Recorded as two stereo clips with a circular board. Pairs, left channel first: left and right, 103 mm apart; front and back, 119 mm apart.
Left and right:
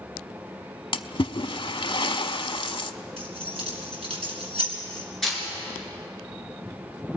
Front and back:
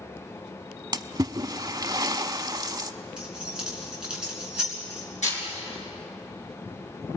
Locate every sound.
0.9 s a splash: 125° left, 0.6 m
3.2 s keys jangling: 100° right, 3.5 m
5.2 s a camera shutter: 5° left, 6 m